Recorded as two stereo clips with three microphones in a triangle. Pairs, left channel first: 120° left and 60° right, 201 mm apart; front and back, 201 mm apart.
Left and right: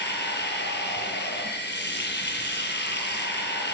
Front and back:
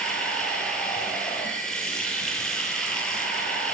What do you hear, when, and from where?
0.0 s running water: 85° left, 9 m